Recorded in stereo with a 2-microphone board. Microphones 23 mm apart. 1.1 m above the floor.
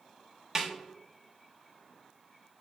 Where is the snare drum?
20° right (ahead or behind), 0.7 m.